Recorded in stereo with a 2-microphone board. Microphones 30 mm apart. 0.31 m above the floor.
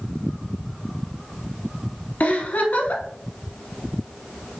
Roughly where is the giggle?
Left.